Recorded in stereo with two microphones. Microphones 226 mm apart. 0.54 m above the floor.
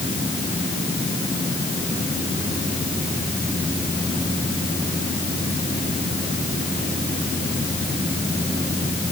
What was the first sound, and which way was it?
Only background noise.